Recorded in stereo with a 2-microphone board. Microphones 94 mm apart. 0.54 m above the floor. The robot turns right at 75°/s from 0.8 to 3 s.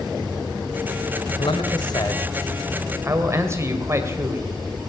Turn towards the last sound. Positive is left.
turn(degrees=-150)